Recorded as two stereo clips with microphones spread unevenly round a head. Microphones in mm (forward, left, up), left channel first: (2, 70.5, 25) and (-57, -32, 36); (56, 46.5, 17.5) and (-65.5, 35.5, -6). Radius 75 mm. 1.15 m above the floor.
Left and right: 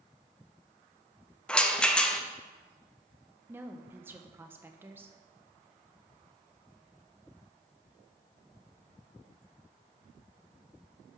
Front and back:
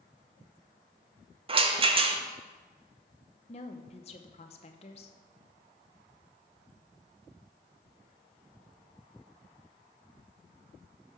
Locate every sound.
1.5 s a rattle: 140° left, 1.1 m
3.5 s a woman speaking: 45° right, 0.8 m